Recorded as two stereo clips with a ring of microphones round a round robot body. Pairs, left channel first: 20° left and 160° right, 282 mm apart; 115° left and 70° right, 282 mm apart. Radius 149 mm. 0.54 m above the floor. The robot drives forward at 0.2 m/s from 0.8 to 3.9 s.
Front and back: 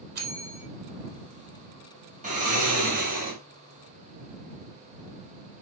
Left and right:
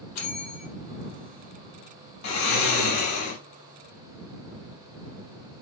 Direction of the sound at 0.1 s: 145° left.